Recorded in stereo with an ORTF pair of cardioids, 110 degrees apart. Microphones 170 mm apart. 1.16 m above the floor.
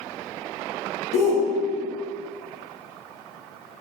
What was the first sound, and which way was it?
A shout, 60° left.